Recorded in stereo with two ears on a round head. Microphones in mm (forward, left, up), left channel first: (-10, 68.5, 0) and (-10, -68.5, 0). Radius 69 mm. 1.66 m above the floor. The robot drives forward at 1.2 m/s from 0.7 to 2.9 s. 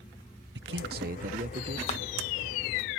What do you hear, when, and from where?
0.6 s a man speaking: 85° right; by 1.8 s 40° right (ahead or behind)
1.9 s a clap: 35° left (ahead or behind); by 2.0 s 40° left (ahead or behind)